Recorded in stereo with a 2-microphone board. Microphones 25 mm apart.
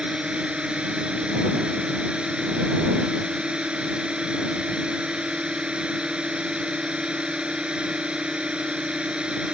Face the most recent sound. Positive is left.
turn(degrees=-50)  # may be behind; listen again after turning